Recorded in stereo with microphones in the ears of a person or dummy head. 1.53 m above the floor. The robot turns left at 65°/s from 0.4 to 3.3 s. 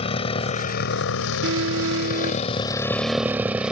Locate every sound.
0.0 s a motorcycle: 30° left (ahead or behind); by 3.7 s 5° right (ahead or behind)
1.4 s an alarm: 75° right; by 2.5 s 145° right